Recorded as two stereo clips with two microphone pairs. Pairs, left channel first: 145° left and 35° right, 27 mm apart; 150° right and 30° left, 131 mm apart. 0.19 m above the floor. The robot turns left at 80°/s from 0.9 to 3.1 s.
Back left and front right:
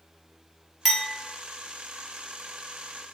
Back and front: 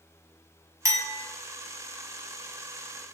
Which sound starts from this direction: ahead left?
A clink, at 0.8 s.